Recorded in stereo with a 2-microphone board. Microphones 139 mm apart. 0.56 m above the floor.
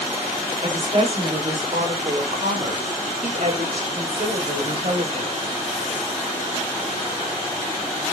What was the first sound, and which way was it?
A woman speaking, 45° right (ahead or behind).